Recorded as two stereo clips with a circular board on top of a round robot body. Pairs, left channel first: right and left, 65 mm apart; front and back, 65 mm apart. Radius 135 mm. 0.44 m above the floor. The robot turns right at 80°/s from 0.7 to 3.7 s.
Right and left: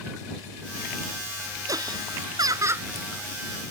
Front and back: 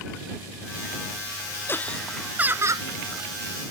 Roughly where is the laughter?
Ahead left.